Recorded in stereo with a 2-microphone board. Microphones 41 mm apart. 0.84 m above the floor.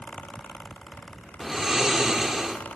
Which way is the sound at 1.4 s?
15° right (ahead or behind).